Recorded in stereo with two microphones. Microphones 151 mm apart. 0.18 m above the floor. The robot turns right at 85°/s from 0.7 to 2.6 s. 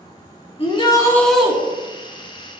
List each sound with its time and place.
0.6 s a shout: 125° left, 2.5 m; by 1.5 s 165° right, 2.5 m